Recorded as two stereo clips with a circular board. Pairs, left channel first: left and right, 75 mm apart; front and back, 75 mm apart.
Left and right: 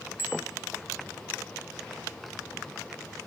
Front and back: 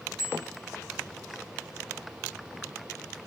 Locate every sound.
0.2 s a bicycle bell: 150° right, 4 m